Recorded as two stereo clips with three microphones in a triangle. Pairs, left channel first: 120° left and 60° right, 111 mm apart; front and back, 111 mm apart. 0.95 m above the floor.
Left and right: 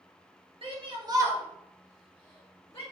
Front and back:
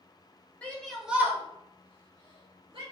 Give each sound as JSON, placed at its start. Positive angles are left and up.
{"t": 0.6, "sound": "a shout", "azimuth_deg": -75, "distance_m": 1.5}